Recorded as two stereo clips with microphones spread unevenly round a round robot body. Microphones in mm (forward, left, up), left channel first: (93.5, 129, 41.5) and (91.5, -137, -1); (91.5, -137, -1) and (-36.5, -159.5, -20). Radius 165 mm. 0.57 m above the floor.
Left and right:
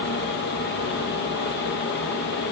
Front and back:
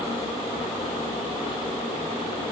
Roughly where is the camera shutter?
No camera shutter in this recording.